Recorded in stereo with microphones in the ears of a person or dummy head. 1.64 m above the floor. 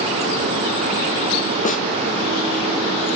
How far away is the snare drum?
About 1.1 m.